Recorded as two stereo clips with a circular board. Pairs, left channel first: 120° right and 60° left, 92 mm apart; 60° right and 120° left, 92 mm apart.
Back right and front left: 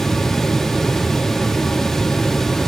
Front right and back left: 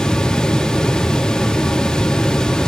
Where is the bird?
No bird in this recording.